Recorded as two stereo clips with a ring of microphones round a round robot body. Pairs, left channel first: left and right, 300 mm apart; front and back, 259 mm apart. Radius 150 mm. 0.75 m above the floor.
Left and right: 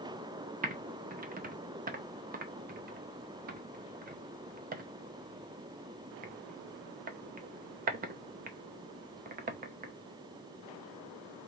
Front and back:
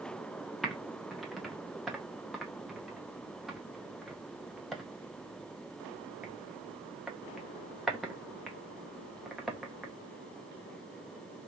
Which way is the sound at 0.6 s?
90° right.